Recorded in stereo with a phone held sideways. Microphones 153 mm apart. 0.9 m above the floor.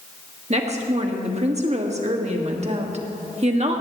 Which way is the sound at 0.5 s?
45° right (ahead or behind).